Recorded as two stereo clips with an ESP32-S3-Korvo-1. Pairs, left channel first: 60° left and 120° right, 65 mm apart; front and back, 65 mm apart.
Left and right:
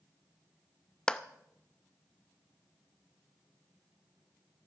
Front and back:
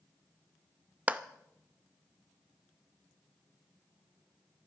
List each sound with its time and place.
1.1 s a clap: 125° left, 0.5 m